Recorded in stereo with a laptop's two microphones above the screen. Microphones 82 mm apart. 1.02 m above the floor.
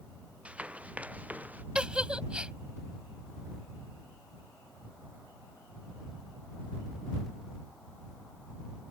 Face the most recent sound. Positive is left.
turn(degrees=-15)  # may be behind; listen again after turning